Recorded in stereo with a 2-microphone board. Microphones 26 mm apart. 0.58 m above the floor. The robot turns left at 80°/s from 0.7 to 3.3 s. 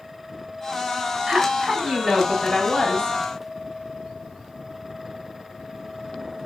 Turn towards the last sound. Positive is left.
turn(degrees=105)